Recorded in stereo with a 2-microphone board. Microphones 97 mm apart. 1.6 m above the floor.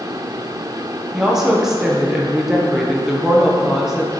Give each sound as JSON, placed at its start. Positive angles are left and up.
{"t": 1.1, "sound": "a woman speaking", "side_deg": -5, "distance_m": 1.3}